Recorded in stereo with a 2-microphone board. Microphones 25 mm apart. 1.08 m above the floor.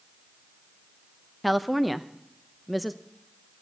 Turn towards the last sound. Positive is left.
turn(degrees=0)  # may be behind; listen again after turning